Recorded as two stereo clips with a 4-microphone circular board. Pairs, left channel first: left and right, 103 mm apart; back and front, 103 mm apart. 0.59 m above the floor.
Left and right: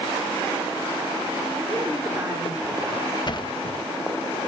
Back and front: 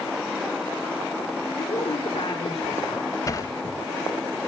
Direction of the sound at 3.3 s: 125° left.